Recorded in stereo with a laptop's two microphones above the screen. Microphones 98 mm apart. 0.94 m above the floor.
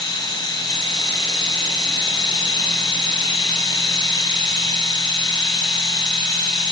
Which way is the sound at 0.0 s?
45° left (ahead or behind).